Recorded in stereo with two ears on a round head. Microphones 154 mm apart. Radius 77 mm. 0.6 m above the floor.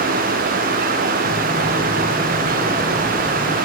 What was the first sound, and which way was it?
Footsteps, 30° right (ahead or behind).